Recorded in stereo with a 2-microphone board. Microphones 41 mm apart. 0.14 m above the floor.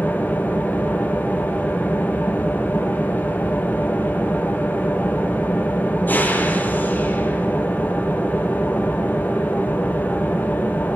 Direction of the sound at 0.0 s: 45° left (ahead or behind).